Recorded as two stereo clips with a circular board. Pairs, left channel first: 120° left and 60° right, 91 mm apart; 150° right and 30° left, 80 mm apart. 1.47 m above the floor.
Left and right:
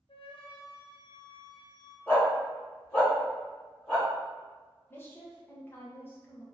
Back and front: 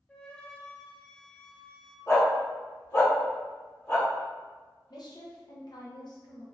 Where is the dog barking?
Straight behind, 1.7 m.